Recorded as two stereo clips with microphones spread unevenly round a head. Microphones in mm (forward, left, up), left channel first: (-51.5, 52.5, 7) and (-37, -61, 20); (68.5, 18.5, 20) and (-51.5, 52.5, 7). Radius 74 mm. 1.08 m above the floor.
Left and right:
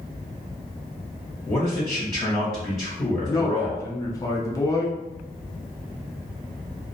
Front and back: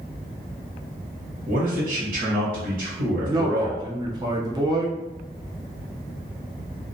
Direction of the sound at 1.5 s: 160° left.